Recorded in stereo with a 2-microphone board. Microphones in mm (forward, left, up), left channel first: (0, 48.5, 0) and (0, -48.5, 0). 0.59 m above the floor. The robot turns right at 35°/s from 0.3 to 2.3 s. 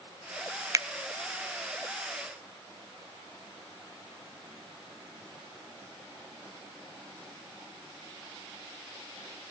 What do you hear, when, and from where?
0.7 s a finger snap: 35° right (ahead or behind), 0.5 m; by 0.9 s 30° right (ahead or behind), 0.5 m